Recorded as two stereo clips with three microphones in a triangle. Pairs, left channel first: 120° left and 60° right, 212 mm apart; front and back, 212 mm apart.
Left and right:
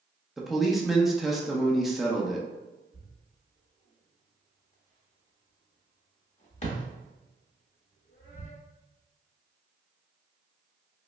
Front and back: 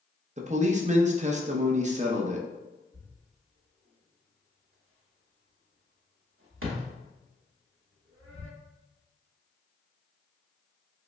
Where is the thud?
175° left, 0.8 m.